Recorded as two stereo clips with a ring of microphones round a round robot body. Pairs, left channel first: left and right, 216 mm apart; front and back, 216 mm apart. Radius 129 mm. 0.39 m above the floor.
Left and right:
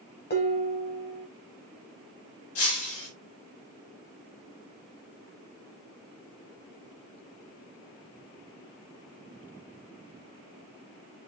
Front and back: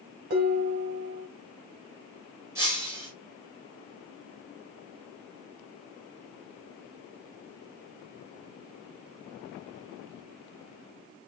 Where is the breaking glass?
100° left, 6.5 m.